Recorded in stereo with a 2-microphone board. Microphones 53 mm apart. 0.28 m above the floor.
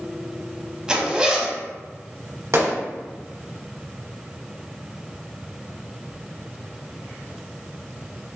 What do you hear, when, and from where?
0.9 s a zipper: 20° right (ahead or behind), 0.7 m
2.5 s a gunshot: 60° right (ahead or behind), 1.3 m